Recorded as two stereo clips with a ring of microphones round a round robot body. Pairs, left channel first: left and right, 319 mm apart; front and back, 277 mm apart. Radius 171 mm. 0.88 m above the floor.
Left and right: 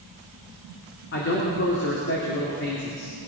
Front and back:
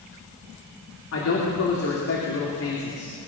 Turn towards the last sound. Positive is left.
turn(degrees=35)